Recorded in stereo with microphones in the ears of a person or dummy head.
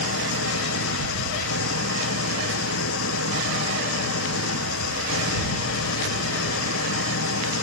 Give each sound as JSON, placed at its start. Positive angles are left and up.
{"t": 0.0, "sound": "an engine running", "side_deg": 75}